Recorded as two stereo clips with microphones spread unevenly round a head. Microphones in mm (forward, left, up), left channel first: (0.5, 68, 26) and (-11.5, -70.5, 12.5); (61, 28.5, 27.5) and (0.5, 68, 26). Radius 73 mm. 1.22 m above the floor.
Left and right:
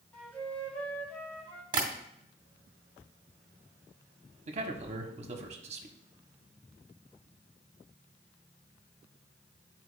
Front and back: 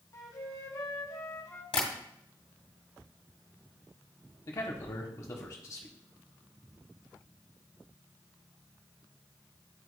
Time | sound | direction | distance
0.1 | a flute | 5° left | 1.0 m
1.7 | tapping | 35° right | 2 m
4.5 | a man speaking | 75° right | 1.0 m